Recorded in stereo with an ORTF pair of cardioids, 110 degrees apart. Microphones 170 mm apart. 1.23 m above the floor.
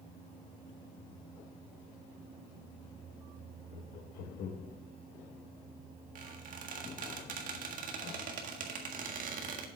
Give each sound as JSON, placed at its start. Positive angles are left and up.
{"t": 3.7, "sound": "laughter", "azimuth_deg": 65, "distance_m": 1.8}
{"t": 6.2, "sound": "a squeak", "azimuth_deg": -55, "distance_m": 1.6}